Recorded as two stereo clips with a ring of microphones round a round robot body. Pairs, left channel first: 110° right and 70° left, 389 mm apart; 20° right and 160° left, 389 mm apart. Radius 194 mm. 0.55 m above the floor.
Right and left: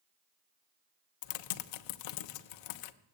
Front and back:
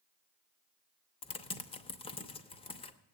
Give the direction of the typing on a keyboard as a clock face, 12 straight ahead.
3 o'clock.